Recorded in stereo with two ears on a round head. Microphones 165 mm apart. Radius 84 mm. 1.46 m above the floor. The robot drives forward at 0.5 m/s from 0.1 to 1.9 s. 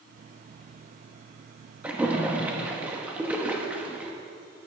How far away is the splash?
About 0.9 m.